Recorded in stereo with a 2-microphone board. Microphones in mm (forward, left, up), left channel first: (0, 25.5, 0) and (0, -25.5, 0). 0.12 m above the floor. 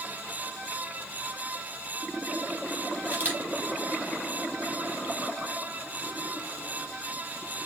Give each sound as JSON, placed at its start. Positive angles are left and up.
{"t": 3.0, "sound": "a camera shutter", "side_deg": -30, "distance_m": 3.5}